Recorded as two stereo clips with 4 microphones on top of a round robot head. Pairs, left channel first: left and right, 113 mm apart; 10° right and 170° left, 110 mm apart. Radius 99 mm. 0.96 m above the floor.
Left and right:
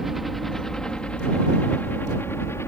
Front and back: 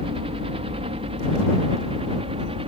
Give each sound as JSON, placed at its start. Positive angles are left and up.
{"t": 0.0, "sound": "a helicopter", "azimuth_deg": 180}